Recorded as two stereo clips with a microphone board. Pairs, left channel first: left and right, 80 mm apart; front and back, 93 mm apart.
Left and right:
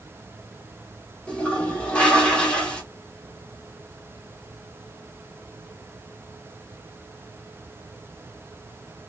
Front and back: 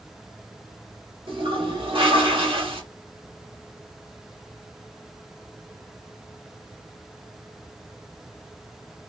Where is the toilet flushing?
165° left, 1.2 m.